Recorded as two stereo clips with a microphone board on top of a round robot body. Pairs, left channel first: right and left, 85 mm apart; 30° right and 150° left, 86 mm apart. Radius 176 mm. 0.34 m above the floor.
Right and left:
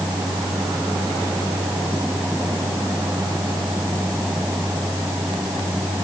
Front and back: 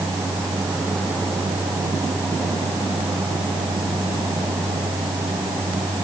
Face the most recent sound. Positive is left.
No sound to turn to.